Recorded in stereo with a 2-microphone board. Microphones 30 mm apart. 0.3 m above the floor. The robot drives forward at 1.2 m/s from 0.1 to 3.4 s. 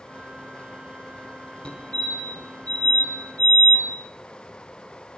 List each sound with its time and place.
1.6 s a fire alarm: 40° left (ahead or behind), 5 m; by 3.9 s 50° left (ahead or behind), 4 m